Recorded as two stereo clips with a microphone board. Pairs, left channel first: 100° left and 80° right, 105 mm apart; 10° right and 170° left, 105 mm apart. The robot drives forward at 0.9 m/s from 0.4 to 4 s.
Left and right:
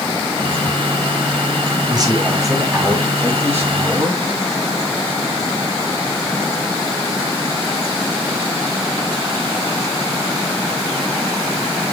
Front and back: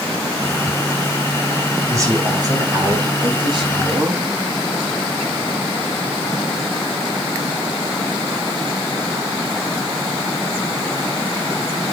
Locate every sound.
1.9 s a man speaking: 130° right, 2.5 m; by 4.2 s 150° right, 4 m